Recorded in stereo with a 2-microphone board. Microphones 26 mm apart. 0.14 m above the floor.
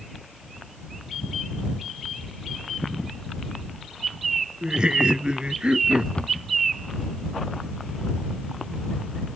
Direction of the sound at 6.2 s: 40° left (ahead or behind).